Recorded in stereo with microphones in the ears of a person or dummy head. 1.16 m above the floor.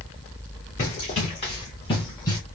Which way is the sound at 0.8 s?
40° left (ahead or behind).